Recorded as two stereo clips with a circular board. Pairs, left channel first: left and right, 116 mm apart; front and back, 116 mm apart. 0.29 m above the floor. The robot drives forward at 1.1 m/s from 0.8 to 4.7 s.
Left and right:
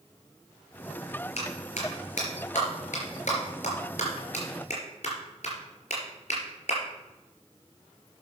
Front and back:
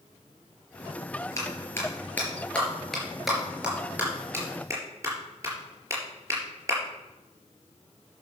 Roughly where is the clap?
Ahead left.